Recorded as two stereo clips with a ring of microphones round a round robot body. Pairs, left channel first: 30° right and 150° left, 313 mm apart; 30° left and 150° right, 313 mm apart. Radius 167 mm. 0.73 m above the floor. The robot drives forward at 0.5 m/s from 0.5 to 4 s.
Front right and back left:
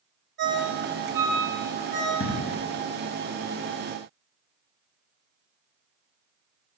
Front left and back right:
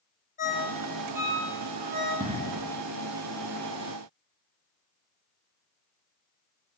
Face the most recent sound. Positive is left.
turn(degrees=-155)